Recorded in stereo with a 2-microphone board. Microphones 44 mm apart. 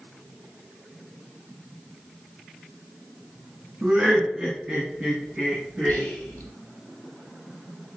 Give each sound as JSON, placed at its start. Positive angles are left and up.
{"t": 3.8, "sound": "laughter", "side_deg": -35, "distance_m": 2.0}
{"t": 5.9, "sound": "whispering", "side_deg": 45, "distance_m": 1.4}